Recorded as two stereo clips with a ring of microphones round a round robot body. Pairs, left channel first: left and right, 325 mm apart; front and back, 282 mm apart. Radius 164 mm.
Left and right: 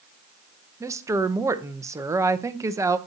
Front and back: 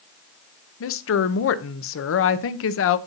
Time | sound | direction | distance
0.8 | a woman speaking | 10° right | 0.7 m